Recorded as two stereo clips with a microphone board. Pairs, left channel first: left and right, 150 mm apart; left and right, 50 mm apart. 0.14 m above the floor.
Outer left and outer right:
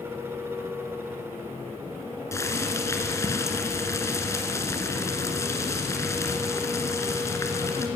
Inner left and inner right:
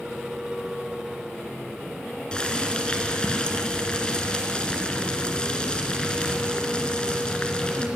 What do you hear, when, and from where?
2.3 s boiling: 20° left (ahead or behind), 2 m